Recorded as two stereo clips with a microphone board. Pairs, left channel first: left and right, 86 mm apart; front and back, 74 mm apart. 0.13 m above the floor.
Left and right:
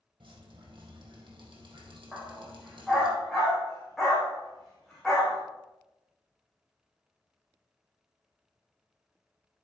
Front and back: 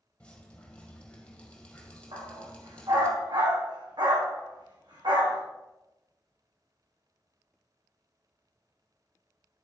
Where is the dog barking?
Straight behind, 3 m.